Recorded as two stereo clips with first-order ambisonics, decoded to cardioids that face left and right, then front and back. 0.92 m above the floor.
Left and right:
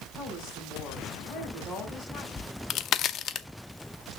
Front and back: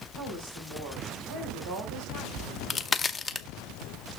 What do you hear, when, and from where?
0.1 s a woman speaking: 165° left, 6 m
2.4 s a crack: 70° left, 0.6 m